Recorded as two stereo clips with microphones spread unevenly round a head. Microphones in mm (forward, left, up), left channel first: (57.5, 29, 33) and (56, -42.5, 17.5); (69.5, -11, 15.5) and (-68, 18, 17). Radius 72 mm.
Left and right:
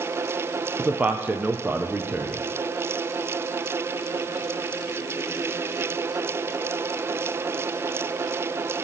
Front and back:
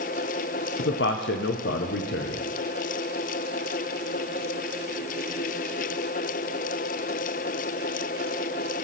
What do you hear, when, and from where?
0.8 s a man speaking: 15° right, 0.6 m